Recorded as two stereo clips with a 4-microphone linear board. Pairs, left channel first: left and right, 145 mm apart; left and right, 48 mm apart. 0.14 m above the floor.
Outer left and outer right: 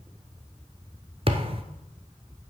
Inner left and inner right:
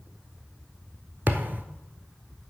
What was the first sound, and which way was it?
A thud, 40° right (ahead or behind).